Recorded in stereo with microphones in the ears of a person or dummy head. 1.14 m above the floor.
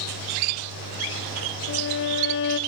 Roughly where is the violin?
Left.